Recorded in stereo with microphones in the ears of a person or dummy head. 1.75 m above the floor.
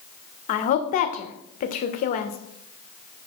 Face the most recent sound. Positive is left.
turn(degrees=45)  # may be behind; listen again after turning